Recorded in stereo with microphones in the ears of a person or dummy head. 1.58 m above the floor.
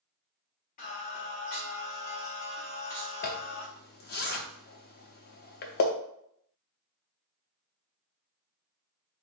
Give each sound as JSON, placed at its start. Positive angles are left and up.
{"t": 0.8, "sound": "singing", "side_deg": 40, "distance_m": 1.2}
{"t": 3.2, "sound": "a zipper", "side_deg": 50, "distance_m": 0.6}